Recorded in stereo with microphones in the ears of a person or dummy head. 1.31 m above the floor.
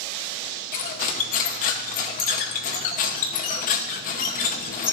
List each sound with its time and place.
0.7 s cutlery clinking: 50° left (ahead or behind), 0.8 m